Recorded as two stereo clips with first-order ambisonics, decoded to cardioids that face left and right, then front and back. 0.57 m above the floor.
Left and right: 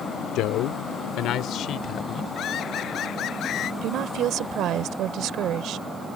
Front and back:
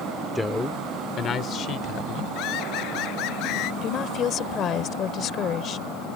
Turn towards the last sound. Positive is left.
turn(degrees=-50)